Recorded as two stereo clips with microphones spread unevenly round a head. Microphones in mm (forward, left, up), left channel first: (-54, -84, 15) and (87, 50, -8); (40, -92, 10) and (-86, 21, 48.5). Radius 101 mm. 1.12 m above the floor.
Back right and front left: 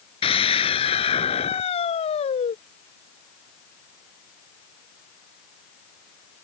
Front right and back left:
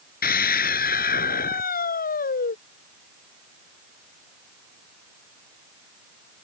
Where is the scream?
75° right; by 2.6 s 80° right.